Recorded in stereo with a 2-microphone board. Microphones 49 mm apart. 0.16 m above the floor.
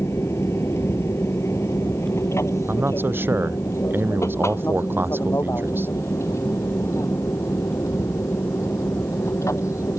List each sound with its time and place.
0.0 s an aircraft: 65° left (ahead or behind); by 10.0 s 75° left (ahead or behind)
2.7 s a man speaking: 45° right (ahead or behind)